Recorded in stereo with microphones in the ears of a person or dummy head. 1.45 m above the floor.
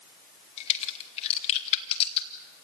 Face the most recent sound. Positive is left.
turn(degrees=35)  # may be behind; listen again after turning